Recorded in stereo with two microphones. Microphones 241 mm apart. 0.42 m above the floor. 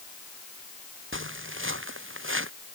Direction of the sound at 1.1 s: 55° right (ahead or behind).